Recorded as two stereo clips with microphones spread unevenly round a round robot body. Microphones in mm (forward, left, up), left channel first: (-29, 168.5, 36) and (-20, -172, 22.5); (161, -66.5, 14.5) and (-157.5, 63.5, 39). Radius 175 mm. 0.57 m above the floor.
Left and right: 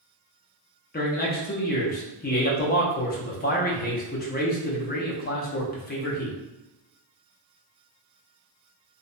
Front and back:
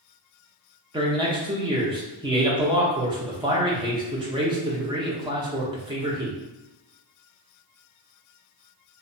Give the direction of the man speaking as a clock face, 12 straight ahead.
9 o'clock.